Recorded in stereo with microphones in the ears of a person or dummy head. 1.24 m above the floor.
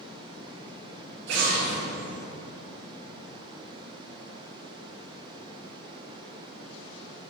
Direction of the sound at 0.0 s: 30° right (ahead or behind).